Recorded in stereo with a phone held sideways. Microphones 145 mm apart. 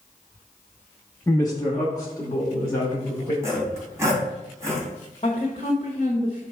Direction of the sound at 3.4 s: 20° right (ahead or behind).